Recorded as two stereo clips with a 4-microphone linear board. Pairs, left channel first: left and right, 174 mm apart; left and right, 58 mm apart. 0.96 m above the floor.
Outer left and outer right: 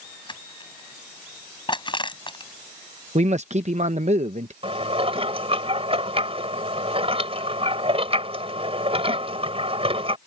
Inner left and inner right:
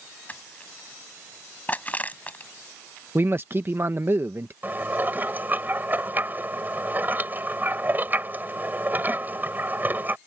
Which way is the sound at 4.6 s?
35° right (ahead or behind).